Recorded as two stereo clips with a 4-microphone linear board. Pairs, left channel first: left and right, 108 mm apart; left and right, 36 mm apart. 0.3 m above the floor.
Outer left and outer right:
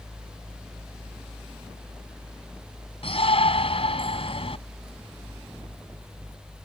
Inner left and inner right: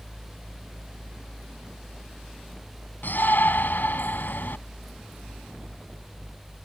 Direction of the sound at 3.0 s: 60° left (ahead or behind).